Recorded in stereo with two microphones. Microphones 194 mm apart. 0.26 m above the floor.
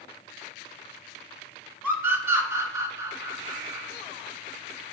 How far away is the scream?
About 3.5 m.